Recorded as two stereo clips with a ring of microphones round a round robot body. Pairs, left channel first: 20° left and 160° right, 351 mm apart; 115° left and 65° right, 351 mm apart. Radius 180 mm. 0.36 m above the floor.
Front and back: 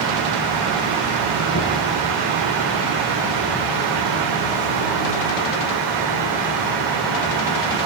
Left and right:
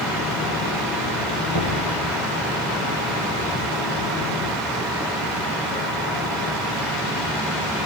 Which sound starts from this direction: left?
Knocking, at 1.5 s.